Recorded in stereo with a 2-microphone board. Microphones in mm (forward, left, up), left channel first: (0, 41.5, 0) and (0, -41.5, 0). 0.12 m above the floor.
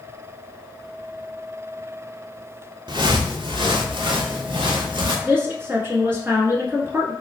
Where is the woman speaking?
25° right (ahead or behind), 1.4 m.